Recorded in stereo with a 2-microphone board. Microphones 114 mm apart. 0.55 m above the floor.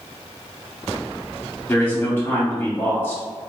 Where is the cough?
No cough in this recording.